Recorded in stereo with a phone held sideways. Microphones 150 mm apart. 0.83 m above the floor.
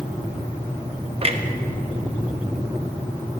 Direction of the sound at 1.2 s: 40° right (ahead or behind).